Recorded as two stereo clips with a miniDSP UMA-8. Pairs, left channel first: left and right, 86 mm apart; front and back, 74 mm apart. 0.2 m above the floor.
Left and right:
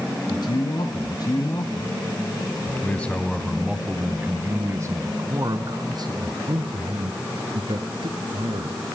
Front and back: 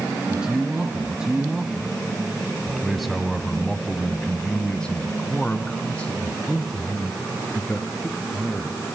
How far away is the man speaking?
About 2.5 m.